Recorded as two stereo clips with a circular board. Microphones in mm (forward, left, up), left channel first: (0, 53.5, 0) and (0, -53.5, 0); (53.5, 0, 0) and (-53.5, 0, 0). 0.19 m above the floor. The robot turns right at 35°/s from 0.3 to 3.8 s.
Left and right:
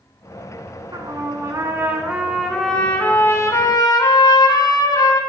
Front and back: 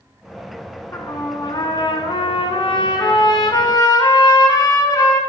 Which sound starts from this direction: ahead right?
A trumpet, at 0.9 s.